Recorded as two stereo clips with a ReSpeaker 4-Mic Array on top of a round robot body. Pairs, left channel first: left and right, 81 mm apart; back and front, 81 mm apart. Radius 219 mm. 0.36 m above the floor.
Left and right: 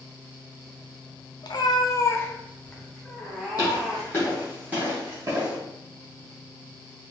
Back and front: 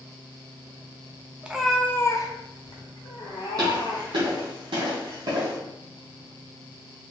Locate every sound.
1.4 s a cat meowing: 70° left, 0.6 m; by 4.3 s 170° right, 1.6 m
3.6 s footsteps: 45° left, 0.6 m; by 5.6 s 50° right, 0.9 m